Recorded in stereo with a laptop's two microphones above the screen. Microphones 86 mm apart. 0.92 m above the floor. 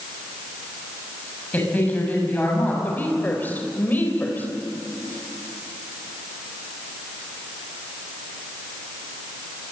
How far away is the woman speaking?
About 4 m.